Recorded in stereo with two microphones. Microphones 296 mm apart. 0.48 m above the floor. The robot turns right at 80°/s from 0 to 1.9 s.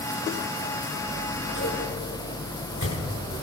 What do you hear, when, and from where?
1.1 s scissors: 35° left (ahead or behind), 6 m; by 3.3 s 70° left (ahead or behind), 6 m